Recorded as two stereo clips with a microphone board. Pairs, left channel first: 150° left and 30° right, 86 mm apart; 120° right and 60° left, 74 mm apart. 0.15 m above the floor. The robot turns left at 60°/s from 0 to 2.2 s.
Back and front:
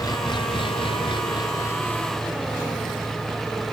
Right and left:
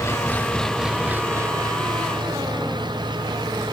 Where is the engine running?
165° right; by 3.7 s 60° left.